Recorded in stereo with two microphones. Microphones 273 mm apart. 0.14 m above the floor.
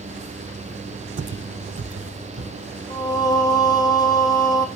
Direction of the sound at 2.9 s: 15° left (ahead or behind).